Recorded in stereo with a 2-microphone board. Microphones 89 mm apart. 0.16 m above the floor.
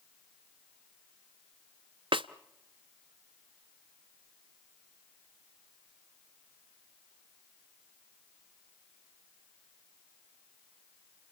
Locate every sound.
2.1 s a snare drum: 70° right (ahead or behind), 0.5 m